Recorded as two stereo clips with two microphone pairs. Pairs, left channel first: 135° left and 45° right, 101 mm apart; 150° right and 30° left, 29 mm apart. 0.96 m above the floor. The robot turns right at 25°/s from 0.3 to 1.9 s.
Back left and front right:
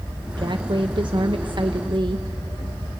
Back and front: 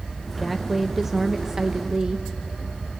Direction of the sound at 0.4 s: 65° right.